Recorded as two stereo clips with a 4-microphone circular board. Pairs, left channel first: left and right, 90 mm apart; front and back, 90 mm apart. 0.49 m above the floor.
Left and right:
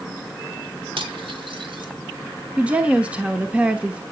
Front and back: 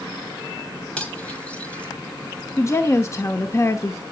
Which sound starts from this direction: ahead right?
A woman speaking, at 2.6 s.